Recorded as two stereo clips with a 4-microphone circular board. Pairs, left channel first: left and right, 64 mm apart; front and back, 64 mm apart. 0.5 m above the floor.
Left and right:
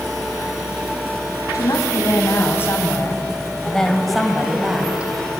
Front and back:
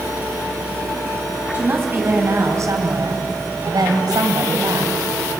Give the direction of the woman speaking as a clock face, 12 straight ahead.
8 o'clock.